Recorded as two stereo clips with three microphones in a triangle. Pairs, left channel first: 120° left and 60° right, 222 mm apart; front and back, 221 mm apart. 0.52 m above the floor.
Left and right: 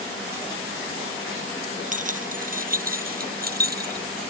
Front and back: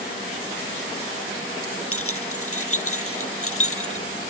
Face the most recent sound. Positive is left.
turn(degrees=-15)